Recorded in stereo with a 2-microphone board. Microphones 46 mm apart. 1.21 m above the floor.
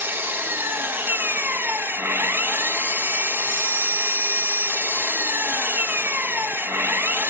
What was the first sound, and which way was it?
An engine running, 55° right (ahead or behind).